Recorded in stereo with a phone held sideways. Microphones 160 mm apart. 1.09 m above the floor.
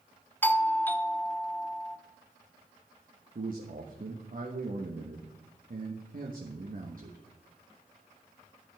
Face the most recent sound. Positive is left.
turn(degrees=-60)  # may be behind; listen again after turning